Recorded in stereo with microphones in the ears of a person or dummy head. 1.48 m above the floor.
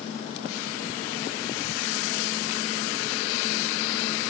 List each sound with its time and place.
Only background noise.